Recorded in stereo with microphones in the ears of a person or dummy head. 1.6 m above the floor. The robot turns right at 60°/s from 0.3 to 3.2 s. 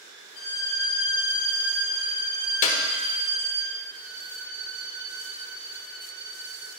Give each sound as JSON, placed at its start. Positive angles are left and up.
{"t": 0.3, "sound": "a violin", "azimuth_deg": 100, "distance_m": 1.6}
{"t": 2.6, "sound": "a clap", "side_deg": 40, "distance_m": 1.3}
{"t": 3.9, "sound": "a violin", "side_deg": -55, "distance_m": 1.4}